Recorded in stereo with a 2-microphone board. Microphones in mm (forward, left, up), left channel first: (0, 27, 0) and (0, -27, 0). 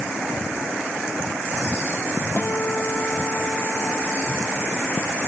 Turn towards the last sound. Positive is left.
turn(degrees=35)  # may be behind; listen again after turning